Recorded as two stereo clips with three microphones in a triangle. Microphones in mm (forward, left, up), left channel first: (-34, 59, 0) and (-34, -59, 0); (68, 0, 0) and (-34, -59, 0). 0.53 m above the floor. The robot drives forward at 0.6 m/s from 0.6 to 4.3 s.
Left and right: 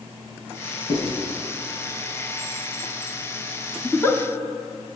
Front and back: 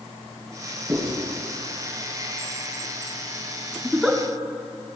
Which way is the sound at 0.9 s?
150° left.